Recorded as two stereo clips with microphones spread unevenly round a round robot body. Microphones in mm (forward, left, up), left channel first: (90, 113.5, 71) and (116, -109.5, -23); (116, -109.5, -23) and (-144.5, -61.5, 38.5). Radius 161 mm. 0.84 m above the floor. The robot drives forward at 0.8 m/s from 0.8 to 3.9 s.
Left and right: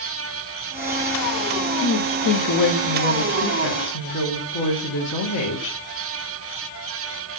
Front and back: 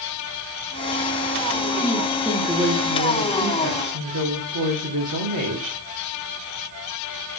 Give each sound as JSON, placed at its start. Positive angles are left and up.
{"t": 1.8, "sound": "a woman speaking", "azimuth_deg": 65, "distance_m": 1.5}